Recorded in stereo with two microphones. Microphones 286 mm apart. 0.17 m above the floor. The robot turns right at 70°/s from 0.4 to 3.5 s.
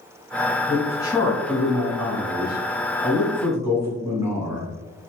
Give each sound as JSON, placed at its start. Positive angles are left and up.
{"t": 0.7, "sound": "a man speaking", "side_deg": 5, "distance_m": 1.4}